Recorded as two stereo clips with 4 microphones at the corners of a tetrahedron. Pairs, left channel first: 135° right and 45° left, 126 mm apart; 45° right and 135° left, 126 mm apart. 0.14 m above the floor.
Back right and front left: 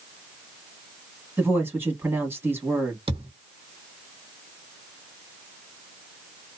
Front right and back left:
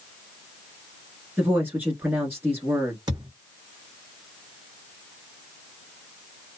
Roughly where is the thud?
Left.